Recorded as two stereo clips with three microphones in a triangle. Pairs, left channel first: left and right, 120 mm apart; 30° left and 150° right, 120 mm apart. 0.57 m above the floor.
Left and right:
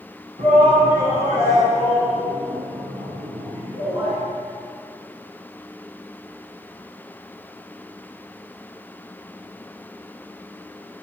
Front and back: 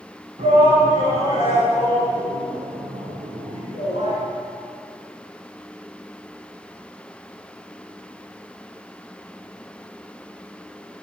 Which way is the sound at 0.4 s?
115° right.